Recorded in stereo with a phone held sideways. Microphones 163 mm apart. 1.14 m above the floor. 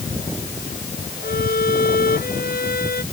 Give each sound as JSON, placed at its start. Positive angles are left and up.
{"t": 1.2, "sound": "a violin", "side_deg": 65}